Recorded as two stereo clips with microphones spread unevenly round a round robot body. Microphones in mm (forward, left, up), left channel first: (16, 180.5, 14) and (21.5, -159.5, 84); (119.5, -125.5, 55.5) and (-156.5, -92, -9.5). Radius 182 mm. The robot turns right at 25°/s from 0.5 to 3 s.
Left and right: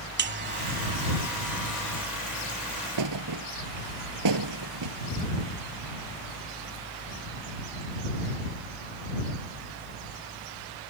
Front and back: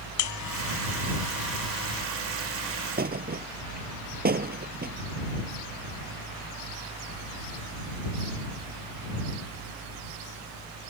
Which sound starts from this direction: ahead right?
A buzzer, at 0.2 s.